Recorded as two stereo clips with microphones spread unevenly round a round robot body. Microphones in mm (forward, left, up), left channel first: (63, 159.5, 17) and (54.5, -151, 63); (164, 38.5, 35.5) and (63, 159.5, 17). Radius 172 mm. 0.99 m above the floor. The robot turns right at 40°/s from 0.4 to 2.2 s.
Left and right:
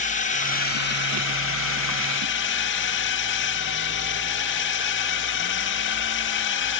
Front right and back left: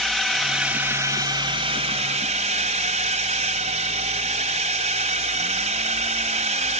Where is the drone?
40° left; by 6.8 s 110° left.